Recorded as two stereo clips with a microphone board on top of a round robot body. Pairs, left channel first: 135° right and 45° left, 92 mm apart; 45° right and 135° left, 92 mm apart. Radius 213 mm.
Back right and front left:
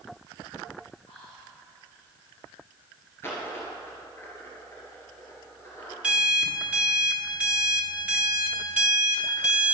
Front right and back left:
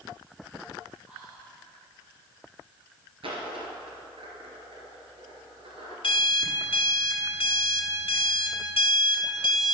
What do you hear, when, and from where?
1.1 s whispering: 150° right, 2.5 m
3.2 s a dropped coin: 160° left, 2 m
6.0 s an alarm clock: 30° right, 1.5 m